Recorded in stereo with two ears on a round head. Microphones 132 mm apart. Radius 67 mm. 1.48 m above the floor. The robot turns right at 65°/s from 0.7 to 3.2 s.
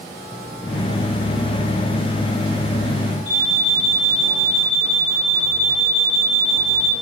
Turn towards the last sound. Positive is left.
turn(degrees=-60)  # may be behind; listen again after turning